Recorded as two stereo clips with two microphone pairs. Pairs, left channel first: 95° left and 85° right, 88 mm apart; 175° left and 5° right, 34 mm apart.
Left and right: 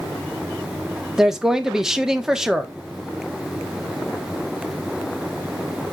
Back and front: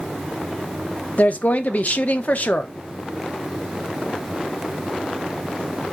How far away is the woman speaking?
About 1.1 m.